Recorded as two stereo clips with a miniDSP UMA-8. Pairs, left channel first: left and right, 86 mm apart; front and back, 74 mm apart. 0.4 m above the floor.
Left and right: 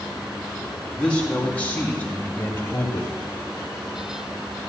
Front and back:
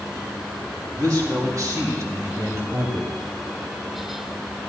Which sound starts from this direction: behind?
A man speaking, at 1.0 s.